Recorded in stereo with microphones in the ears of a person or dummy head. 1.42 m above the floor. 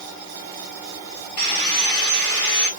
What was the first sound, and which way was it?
Sawing, 45° left (ahead or behind).